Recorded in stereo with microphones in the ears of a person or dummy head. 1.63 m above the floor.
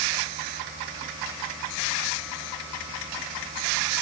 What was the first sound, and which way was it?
Only background noise.